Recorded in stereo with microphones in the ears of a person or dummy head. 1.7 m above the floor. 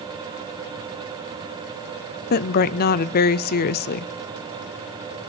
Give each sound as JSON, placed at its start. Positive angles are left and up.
{"t": 2.3, "sound": "a woman speaking", "side_deg": 50, "distance_m": 0.7}